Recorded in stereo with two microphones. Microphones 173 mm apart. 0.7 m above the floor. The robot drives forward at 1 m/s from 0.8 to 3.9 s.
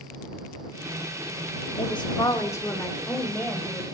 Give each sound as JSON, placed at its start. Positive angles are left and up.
{"t": 1.8, "sound": "a woman speaking", "side_deg": 35, "distance_m": 1.0}